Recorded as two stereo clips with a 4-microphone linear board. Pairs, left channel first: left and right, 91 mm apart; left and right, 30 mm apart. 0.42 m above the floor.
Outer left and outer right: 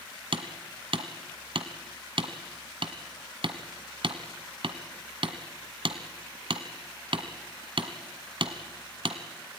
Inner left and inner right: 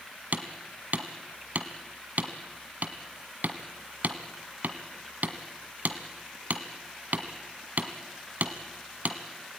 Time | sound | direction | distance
0.3 | hammering | 70° right (ahead or behind) | 1.5 m